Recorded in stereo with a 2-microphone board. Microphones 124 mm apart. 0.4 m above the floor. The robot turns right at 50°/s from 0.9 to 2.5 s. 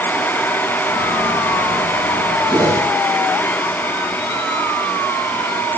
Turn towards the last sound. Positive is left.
turn(degrees=-30)  # may be behind; listen again after turning